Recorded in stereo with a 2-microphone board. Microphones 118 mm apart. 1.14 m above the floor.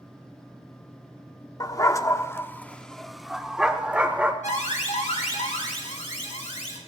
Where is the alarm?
90° left, 2 m.